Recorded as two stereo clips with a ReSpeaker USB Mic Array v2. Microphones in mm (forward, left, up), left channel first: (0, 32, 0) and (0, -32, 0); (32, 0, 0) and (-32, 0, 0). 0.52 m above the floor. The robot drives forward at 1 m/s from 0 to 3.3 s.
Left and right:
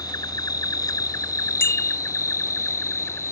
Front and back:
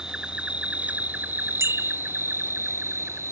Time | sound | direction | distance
0.0 | an insect | 100° left | ?
1.6 | a bicycle bell | 140° left | ?